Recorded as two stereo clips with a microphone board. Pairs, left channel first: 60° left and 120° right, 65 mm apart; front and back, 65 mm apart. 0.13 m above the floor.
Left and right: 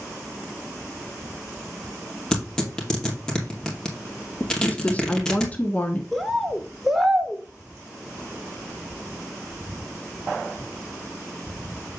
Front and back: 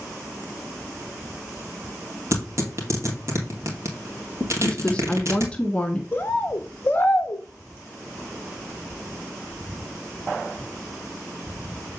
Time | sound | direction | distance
2.3 | tearing paper | 140° left | 3 m
4.6 | a woman speaking | 45° left | 1.1 m
6.1 | a bird | 30° right | 1.0 m